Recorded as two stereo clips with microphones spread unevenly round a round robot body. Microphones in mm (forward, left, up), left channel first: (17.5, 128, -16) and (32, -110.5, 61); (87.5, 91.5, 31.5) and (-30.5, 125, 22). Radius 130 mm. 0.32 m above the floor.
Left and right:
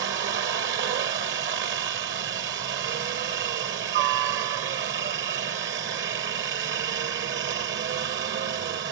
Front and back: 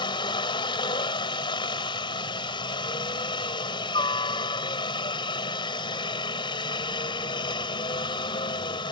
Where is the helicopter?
50° right.